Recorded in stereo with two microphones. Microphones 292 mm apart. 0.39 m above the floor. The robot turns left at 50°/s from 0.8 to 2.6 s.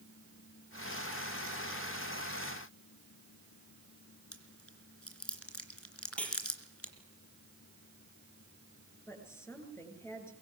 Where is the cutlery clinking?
5° left (ahead or behind), 6 m.